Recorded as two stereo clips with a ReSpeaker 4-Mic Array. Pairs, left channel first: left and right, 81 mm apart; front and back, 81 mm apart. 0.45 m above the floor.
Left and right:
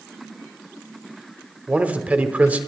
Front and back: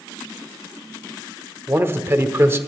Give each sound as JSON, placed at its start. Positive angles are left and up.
{"t": 1.7, "sound": "a man speaking", "azimuth_deg": -145, "distance_m": 1.0}